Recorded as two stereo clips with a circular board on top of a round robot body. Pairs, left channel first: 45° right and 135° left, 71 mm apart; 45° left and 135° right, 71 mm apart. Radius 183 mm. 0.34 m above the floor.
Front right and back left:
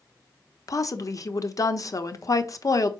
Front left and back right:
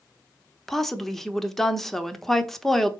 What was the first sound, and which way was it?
A woman speaking, 40° right.